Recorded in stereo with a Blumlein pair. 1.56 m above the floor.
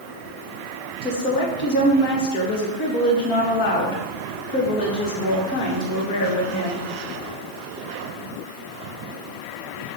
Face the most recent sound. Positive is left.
turn(degrees=40)